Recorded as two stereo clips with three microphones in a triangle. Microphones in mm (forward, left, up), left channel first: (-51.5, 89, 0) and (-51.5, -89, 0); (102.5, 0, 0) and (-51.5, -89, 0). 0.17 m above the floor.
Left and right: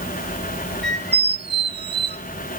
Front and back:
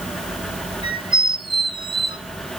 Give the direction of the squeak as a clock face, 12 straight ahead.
3 o'clock.